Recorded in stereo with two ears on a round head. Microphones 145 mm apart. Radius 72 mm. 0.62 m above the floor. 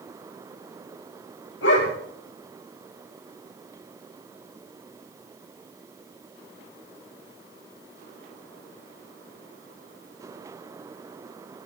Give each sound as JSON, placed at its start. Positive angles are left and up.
{"t": 1.6, "sound": "a dog barking", "side_deg": 85, "distance_m": 5.5}